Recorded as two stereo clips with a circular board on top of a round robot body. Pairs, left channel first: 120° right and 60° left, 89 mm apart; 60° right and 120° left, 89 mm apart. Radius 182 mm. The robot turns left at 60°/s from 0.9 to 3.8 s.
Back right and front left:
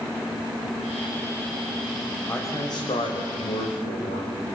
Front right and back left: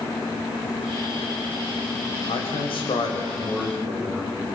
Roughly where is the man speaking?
Ahead right.